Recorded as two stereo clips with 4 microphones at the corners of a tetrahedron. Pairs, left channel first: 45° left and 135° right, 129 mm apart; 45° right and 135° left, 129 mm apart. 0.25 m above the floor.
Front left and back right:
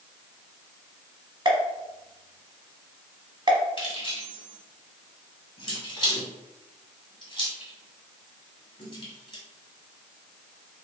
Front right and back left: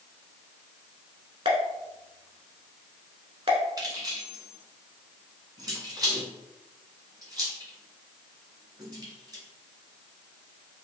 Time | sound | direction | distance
1.4 | a pop | 175° left | 0.8 m
3.8 | keys jangling | 85° left | 1.5 m